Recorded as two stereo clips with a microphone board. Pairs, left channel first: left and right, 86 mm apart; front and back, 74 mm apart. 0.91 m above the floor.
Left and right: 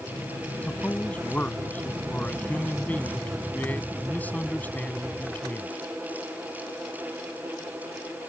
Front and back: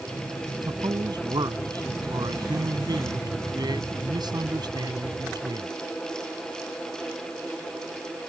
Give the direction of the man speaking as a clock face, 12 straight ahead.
7 o'clock.